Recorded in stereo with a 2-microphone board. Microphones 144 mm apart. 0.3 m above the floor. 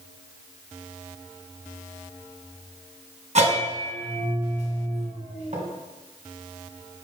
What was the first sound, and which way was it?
A bell, 50° right (ahead or behind).